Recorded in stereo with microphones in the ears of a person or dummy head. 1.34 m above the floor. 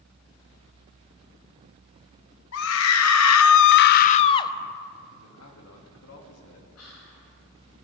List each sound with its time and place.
2.5 s a scream: 70° left (ahead or behind), 1.1 m; by 4.5 s 20° left (ahead or behind), 0.8 m
5.2 s a man speaking: 85° left, 2.5 m
6.8 s whispering: 90° left, 7 m